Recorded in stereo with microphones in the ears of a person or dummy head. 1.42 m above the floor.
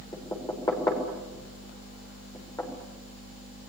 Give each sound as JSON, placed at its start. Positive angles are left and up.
{"t": 0.1, "sound": "knocking", "side_deg": 15, "distance_m": 4.5}